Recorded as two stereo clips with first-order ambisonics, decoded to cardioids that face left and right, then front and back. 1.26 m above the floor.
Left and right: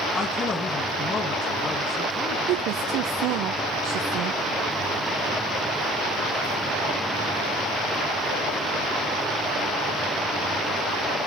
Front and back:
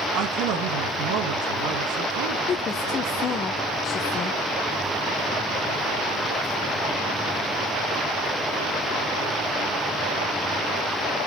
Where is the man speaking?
160° left, 1.3 m.